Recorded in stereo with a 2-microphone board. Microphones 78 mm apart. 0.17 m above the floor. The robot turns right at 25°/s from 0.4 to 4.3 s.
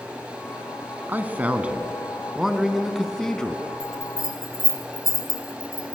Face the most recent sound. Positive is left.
turn(degrees=50)  # may be behind; listen again after turning